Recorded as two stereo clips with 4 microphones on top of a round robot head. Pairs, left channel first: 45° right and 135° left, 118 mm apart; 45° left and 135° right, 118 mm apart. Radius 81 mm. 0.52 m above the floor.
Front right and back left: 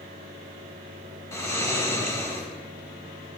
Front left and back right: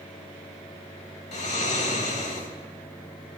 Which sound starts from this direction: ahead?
Snoring, at 1.3 s.